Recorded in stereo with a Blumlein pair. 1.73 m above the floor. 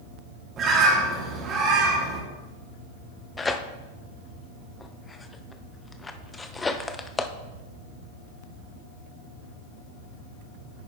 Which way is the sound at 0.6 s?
30° right.